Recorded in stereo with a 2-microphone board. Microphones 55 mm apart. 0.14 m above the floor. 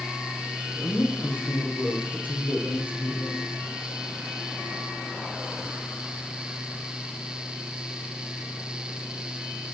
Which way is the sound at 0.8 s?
40° left (ahead or behind).